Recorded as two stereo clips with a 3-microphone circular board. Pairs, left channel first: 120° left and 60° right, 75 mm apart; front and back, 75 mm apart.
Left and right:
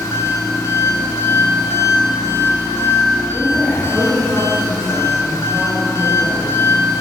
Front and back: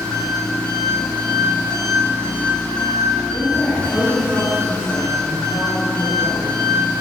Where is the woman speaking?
25° left, 3 m.